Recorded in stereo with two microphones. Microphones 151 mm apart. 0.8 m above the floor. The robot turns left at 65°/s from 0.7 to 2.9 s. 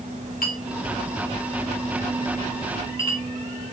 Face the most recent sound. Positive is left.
turn(degrees=-40)  # may be behind; listen again after turning